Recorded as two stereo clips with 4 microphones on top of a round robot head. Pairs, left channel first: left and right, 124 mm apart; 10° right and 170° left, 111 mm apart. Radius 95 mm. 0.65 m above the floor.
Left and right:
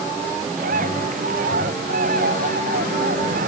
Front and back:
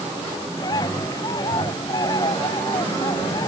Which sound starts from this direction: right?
A bird, at 0.6 s.